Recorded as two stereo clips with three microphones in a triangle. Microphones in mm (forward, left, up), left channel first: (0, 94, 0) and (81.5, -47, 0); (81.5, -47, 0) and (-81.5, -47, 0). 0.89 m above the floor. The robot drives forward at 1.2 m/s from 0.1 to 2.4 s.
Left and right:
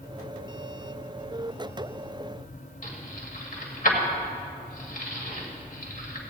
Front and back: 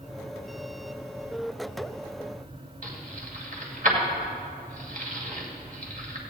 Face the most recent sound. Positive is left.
turn(degrees=150)